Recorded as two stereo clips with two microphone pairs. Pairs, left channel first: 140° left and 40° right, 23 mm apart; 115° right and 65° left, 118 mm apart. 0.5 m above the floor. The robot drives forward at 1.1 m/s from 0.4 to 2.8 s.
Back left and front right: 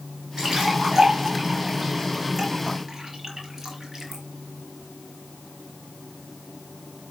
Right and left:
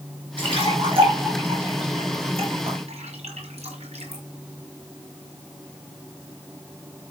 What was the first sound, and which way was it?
A splash, 25° left.